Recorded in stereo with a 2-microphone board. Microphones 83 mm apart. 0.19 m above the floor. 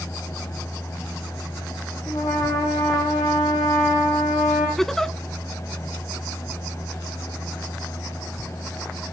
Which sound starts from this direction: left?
A trumpet, at 2.1 s.